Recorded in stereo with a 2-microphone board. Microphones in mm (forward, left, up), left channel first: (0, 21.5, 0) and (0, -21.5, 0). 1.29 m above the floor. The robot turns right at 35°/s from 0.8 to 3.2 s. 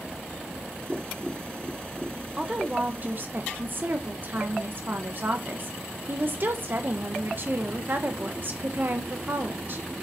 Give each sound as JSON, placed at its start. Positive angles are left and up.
{"t": 0.9, "sound": "tapping", "side_deg": 20, "distance_m": 1.8}
{"t": 2.4, "sound": "a woman speaking", "side_deg": -20, "distance_m": 1.1}